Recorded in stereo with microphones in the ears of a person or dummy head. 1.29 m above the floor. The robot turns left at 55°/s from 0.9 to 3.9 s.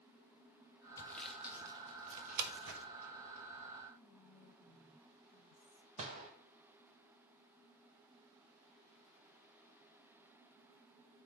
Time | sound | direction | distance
1.0 | sawing | 15° left (ahead or behind) | 1.0 m
4.0 | whispering | 35° left (ahead or behind) | 0.7 m
6.0 | a gunshot | 30° right (ahead or behind) | 1.4 m